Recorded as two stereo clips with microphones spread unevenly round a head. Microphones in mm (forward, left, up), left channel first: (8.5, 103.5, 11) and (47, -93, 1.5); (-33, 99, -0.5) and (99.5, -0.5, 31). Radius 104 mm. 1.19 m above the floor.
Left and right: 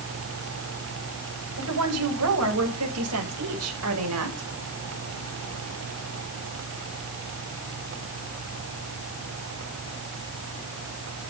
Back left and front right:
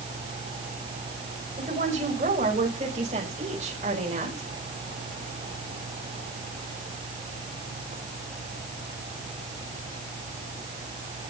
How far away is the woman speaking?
About 7 m.